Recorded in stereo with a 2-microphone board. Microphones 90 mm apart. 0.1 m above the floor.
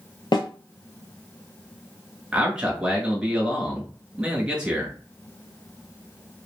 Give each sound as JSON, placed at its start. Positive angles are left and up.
{"t": 0.3, "sound": "a snare drum", "side_deg": 55, "distance_m": 0.6}
{"t": 2.3, "sound": "a man speaking", "side_deg": -10, "distance_m": 1.1}